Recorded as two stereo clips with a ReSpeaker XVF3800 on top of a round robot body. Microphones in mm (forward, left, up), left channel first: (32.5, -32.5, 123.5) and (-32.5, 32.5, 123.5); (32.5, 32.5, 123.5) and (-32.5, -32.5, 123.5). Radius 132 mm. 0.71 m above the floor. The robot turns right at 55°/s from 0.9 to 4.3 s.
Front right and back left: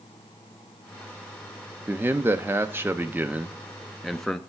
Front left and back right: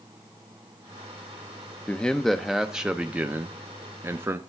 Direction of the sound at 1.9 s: 100° left.